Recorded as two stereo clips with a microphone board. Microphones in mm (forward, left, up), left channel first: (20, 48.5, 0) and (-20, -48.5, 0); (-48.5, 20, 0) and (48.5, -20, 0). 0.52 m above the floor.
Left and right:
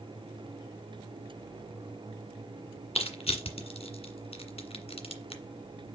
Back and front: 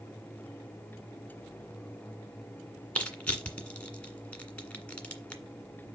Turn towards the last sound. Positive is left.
turn(degrees=80)